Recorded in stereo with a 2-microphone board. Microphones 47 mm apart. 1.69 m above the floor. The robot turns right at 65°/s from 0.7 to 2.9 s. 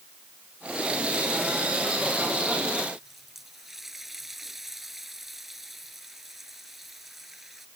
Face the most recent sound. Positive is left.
turn(degrees=-5)  # may be behind; listen again after turning